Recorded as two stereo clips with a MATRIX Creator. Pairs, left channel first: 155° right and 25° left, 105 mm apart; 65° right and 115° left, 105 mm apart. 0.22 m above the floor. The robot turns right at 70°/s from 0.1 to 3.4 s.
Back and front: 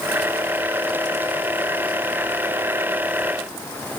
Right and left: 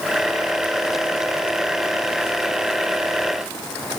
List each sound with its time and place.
Only background noise.